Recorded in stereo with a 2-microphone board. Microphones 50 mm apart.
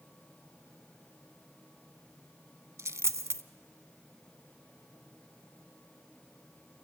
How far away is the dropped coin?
About 0.5 m.